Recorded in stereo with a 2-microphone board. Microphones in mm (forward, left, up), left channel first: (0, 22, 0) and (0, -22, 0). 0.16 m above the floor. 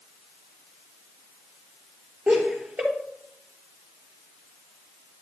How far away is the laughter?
About 3 m.